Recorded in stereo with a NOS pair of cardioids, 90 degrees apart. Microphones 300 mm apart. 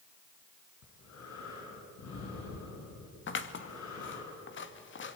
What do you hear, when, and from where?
0.8 s breathing: 65° left, 6.5 m
3.3 s scissors: 40° left, 1.9 m